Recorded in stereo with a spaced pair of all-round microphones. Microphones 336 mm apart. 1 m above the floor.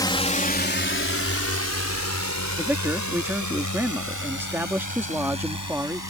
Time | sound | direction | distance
0.0 | a drone | 10° left (ahead or behind) | ?
2.6 | a man speaking | 5° right (ahead or behind) | ?